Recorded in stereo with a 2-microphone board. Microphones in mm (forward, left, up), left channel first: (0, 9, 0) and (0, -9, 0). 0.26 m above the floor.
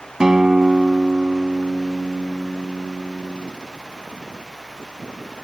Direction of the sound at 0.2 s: 35° right (ahead or behind).